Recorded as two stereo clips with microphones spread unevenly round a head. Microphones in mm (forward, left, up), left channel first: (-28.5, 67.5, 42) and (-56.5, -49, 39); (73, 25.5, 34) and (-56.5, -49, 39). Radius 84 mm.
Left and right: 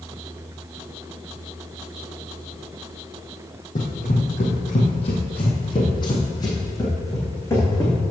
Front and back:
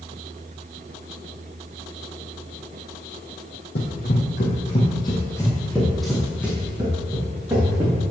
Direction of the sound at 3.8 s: 45° left.